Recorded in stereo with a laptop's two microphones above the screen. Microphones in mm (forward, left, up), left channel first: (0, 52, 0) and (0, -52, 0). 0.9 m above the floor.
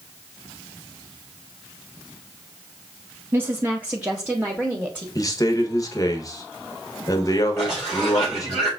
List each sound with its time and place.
3.3 s a woman speaking: 20° right (ahead or behind), 0.7 m; by 5.0 s 10° right (ahead or behind), 1.3 m
5.2 s a man speaking: 35° left (ahead or behind), 1.0 m
7.6 s a cough: 45° right (ahead or behind), 3.5 m